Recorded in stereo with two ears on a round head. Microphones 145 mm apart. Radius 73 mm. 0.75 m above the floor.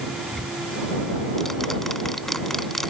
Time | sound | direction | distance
0.3 | ticking | centre (ahead or behind) | ?